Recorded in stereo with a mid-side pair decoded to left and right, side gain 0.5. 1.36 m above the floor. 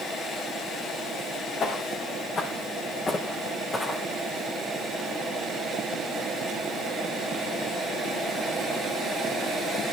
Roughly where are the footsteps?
Ahead left.